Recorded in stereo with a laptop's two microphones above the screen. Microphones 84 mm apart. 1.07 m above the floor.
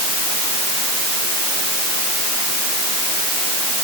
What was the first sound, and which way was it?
Only background noise.